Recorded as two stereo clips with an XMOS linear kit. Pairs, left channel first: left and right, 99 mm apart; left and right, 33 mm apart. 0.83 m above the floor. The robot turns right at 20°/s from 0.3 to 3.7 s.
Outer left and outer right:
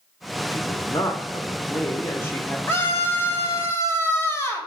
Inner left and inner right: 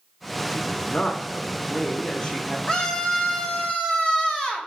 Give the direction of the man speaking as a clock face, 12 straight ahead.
8 o'clock.